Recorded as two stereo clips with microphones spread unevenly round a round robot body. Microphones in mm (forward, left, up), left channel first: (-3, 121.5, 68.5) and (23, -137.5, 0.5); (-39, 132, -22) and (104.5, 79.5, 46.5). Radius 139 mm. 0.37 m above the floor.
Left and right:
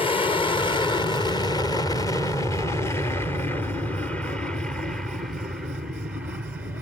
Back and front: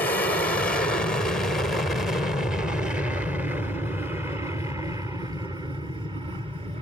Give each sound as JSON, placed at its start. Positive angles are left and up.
{"t": 0.0, "sound": "an aircraft", "azimuth_deg": 175}